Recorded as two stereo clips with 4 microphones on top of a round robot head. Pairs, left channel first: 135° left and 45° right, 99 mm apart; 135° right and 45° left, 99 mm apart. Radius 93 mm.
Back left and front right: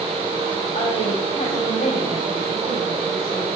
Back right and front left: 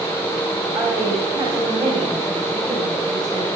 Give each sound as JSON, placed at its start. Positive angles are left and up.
{"t": 0.7, "sound": "a woman speaking", "azimuth_deg": 120, "distance_m": 4.5}